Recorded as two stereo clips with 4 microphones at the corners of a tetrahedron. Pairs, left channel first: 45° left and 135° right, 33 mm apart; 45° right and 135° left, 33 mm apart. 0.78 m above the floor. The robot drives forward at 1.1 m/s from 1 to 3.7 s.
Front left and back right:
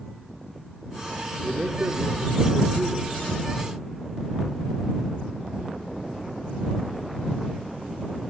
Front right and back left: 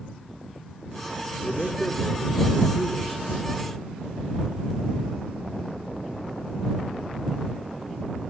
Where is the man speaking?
95° right, 1.8 m; by 3.2 s 140° right, 3 m.